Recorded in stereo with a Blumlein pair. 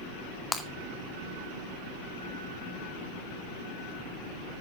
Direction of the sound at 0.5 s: 10° left.